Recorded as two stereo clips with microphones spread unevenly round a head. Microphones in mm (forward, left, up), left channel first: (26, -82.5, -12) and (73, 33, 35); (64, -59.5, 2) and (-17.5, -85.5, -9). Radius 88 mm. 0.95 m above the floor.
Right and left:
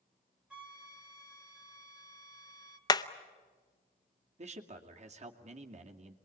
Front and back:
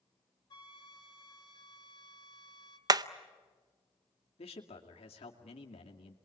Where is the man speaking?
30° left, 2.5 m.